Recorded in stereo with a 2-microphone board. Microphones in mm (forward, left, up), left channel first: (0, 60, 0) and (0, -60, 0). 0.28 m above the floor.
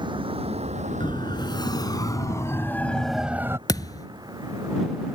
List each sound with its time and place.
0.0 s a vehicle: 40° right (ahead or behind); by 5.2 s 30° right (ahead or behind)
1.0 s a siren: 40° left (ahead or behind); by 3.6 s 25° right (ahead or behind)
3.7 s a thud: 30° left (ahead or behind)